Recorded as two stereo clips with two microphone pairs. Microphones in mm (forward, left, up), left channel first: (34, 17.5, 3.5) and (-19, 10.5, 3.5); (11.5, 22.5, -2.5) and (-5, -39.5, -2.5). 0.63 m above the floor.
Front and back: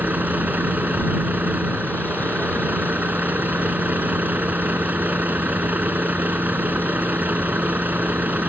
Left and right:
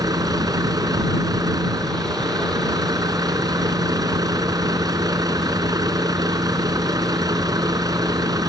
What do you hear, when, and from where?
0.0 s a vehicle: 115° right